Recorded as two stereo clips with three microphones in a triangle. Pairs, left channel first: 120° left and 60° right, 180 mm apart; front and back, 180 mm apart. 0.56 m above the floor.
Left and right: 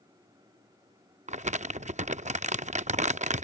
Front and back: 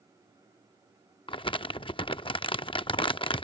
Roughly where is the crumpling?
Ahead right.